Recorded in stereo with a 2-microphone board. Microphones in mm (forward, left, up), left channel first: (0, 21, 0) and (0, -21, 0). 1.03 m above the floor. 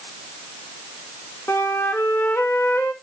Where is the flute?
75° left (ahead or behind), 1.4 m.